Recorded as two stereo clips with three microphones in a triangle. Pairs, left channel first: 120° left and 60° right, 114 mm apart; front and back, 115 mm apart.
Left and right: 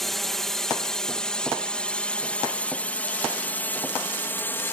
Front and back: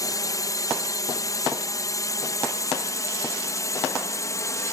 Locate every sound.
0.0 s a drone: 35° left; by 4.7 s 55° left